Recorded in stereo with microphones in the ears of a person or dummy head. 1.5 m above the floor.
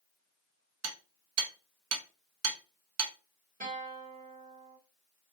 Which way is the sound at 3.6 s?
45° right (ahead or behind).